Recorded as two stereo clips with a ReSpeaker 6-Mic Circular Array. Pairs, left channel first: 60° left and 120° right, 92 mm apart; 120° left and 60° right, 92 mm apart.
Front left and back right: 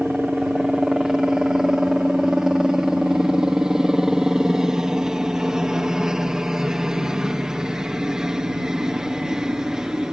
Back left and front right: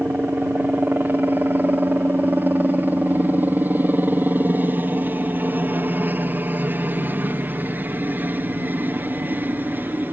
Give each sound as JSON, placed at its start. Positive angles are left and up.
{"t": 0.0, "sound": "a helicopter", "azimuth_deg": -45}